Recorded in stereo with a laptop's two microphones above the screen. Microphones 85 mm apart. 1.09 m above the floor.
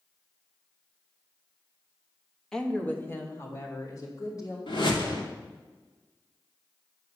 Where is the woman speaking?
5° left (ahead or behind), 1.3 m; by 4.6 s 45° left (ahead or behind), 3.5 m.